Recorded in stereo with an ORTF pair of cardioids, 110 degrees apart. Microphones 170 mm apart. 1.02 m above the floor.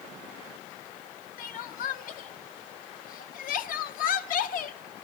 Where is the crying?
55° left, 0.7 m.